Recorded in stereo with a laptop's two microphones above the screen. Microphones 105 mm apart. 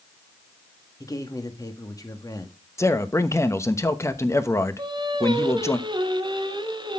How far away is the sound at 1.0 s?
About 1.5 m.